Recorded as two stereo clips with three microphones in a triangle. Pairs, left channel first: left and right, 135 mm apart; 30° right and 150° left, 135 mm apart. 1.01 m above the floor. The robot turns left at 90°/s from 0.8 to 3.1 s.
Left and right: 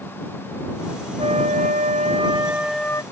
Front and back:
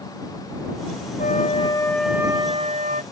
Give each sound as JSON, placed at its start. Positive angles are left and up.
{"t": 1.2, "sound": "a flute", "azimuth_deg": -40}